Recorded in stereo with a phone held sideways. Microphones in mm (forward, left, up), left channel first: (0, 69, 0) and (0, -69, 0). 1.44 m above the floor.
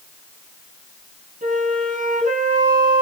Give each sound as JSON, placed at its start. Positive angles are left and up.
{"t": 1.4, "sound": "a flute", "side_deg": -75, "distance_m": 4.0}